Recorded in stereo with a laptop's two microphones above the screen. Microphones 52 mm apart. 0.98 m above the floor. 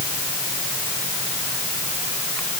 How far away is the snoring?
I don't hear snoring.